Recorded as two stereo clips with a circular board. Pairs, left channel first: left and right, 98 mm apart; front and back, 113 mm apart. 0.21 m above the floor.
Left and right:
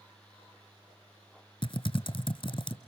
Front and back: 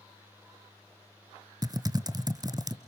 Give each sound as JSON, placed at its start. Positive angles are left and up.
{"t": 1.6, "sound": "typing on a keyboard", "azimuth_deg": 125, "distance_m": 0.9}